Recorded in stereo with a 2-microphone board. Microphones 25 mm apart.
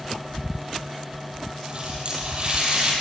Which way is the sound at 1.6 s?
40° right (ahead or behind).